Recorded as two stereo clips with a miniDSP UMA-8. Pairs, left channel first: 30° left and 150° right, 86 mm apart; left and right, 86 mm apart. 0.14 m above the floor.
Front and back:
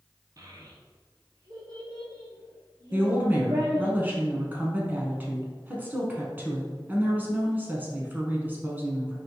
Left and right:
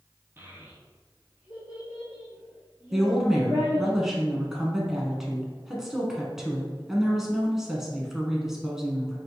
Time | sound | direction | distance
0.4 | a child speaking | 140° right | 1.0 m
2.9 | a woman speaking | 165° right | 1.0 m